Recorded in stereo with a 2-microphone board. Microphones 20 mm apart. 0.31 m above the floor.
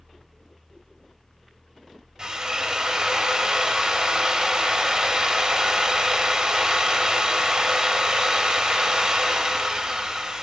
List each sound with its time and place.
2.2 s a drill: 35° right (ahead or behind), 0.5 m